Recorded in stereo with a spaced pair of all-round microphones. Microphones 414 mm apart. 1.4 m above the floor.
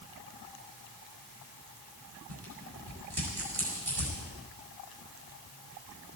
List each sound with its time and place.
2.3 s tearing paper: 65° right (ahead or behind), 6 m